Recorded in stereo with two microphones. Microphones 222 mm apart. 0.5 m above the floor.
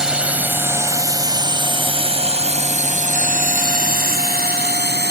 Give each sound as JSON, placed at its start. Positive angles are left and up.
{"t": 0.0, "sound": "a drone", "side_deg": -5}